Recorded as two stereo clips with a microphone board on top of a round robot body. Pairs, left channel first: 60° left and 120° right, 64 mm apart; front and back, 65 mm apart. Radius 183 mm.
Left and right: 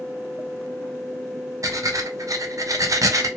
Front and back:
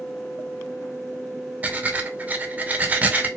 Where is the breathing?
115° right, 0.9 m.